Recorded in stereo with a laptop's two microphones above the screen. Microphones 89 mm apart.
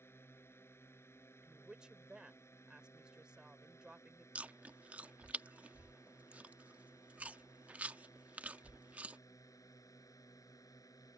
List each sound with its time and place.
0.0 s a drone: 25° left (ahead or behind); by 11.2 s 40° left (ahead or behind)
1.4 s a woman speaking: 10° right (ahead or behind)
4.3 s chewing: 15° right (ahead or behind)